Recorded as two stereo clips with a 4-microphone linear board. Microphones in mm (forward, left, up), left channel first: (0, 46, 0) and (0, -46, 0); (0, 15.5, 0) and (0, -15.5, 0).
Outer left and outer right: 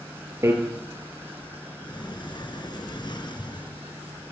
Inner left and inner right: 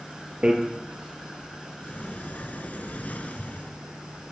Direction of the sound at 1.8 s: 55° left (ahead or behind).